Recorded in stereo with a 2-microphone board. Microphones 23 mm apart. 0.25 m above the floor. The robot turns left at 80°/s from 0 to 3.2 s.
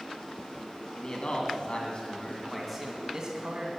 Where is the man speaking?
140° left, 2.5 m; by 3.7 s 40° right, 2.5 m.